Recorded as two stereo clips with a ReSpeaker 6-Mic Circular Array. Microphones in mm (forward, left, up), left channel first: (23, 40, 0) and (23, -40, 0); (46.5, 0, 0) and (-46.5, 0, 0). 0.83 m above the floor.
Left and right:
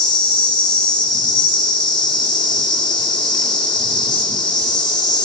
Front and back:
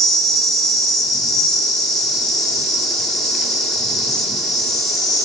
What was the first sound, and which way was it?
An insect, 90° left.